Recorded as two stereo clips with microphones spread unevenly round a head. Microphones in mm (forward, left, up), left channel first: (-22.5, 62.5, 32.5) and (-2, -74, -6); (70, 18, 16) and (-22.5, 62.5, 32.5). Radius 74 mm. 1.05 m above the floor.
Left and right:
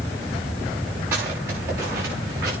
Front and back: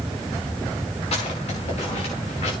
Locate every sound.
1.1 s footsteps: 5° right, 8.5 m; by 2.5 s 10° right, 9.5 m